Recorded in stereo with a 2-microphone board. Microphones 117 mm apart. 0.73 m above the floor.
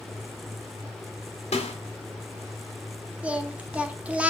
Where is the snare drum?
70° left (ahead or behind), 1.9 m.